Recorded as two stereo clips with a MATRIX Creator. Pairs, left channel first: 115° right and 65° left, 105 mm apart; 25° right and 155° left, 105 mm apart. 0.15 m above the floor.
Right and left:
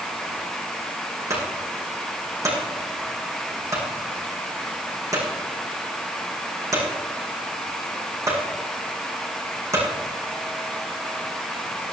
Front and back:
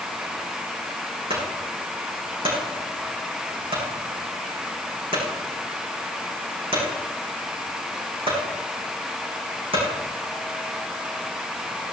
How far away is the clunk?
About 7.5 m.